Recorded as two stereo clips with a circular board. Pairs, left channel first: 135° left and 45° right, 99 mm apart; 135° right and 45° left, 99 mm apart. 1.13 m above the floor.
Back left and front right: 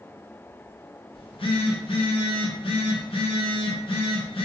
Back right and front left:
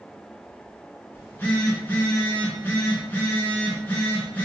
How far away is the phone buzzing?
About 0.8 m.